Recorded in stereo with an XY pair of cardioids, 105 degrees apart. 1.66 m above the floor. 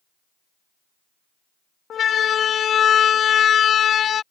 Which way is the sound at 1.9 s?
55° left.